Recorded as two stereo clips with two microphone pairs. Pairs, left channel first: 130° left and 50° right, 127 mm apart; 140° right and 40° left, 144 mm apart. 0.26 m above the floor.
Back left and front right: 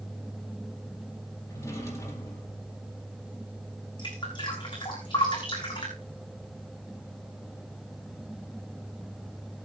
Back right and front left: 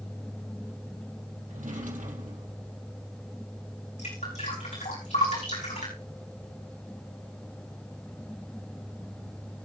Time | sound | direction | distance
1.5 | a drawer | 65° left | 4 m
4.0 | dripping | straight behind | 6 m